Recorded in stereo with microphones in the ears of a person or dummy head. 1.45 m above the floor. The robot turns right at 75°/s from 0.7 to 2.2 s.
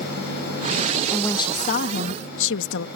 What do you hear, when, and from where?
1.1 s a woman speaking: 5° left; by 2.9 s 85° left